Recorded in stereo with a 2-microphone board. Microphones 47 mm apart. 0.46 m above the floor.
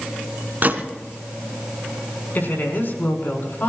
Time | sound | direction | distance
0.6 | a gunshot | 40° right (ahead or behind) | 1.7 m
2.4 | a woman speaking | 50° left (ahead or behind) | 5.5 m